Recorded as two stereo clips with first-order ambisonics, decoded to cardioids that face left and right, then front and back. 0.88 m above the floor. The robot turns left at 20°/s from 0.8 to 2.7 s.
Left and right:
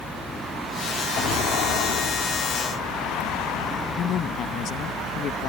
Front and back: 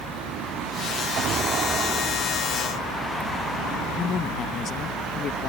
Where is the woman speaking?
50° left.